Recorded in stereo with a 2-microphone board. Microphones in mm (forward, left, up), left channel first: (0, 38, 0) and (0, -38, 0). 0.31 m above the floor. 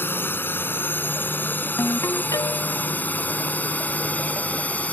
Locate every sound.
0.0 s a drone: 30° left (ahead or behind); by 4.9 s 20° left (ahead or behind)
1.8 s a ringtone: 55° left (ahead or behind)